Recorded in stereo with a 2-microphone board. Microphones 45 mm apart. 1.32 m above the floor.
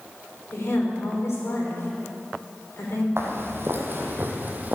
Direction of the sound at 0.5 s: 65° left (ahead or behind).